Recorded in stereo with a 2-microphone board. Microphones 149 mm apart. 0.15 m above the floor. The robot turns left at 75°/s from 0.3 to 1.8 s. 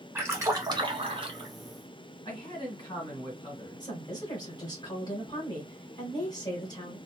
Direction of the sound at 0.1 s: 30° right.